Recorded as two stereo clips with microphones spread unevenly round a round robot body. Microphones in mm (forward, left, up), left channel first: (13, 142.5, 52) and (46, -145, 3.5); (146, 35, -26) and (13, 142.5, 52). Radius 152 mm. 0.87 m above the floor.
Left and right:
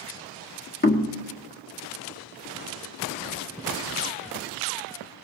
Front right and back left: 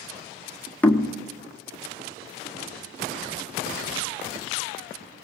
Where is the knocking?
35° left, 1.7 m.